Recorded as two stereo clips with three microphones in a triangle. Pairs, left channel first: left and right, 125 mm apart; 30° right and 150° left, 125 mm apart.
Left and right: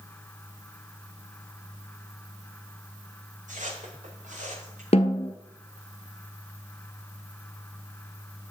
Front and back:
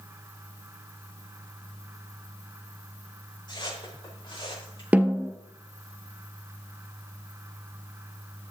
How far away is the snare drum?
About 1.2 m.